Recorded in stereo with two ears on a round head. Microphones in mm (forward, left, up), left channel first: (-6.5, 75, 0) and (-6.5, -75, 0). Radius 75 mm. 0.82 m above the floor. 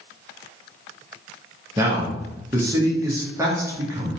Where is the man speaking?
15° right (ahead or behind), 0.7 m.